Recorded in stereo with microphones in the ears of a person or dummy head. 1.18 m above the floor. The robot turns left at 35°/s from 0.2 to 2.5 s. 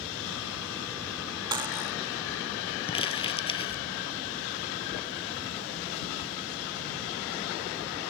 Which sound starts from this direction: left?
Crumpling, at 2.9 s.